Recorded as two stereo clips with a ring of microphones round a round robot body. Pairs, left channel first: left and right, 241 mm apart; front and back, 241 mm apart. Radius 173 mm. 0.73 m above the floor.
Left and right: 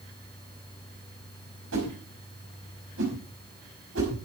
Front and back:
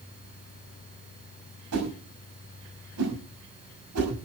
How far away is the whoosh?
About 6 m.